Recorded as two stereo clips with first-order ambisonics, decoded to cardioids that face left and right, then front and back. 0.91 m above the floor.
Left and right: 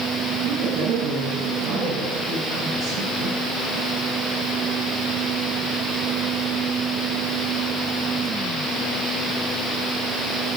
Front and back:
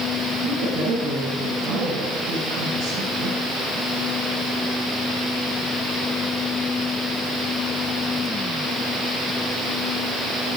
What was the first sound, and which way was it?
A woman speaking, 130° right.